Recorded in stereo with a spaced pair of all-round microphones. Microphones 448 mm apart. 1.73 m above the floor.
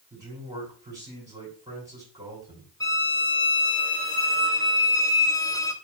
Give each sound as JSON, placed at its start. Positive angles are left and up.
{"t": 0.1, "sound": "a man speaking", "side_deg": -10, "distance_m": 5.0}
{"t": 2.8, "sound": "a violin", "side_deg": 10, "distance_m": 1.2}